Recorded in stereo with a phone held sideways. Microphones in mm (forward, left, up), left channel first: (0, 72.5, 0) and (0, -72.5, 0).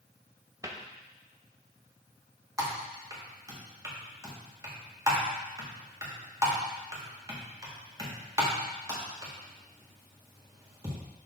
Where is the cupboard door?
20° right (ahead or behind), 0.8 m.